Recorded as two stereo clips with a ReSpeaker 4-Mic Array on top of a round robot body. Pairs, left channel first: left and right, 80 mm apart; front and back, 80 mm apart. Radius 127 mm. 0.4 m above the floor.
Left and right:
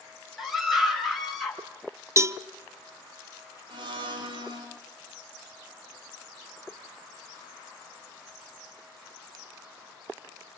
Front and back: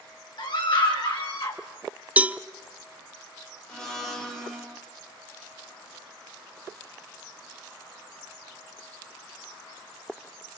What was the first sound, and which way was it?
A scream, 5° right.